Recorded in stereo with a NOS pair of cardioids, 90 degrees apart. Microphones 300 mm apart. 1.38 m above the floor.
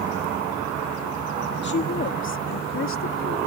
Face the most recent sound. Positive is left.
turn(degrees=45)